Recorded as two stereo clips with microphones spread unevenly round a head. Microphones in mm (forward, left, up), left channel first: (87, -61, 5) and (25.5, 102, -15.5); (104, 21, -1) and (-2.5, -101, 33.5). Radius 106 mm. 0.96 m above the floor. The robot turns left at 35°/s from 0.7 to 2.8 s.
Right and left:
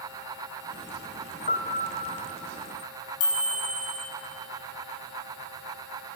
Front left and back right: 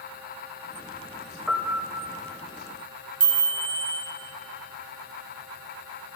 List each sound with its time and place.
1.5 s a piano: 50° right, 1.3 m; by 2.2 s 80° right, 1.3 m
3.2 s a chime: 90° right, 3 m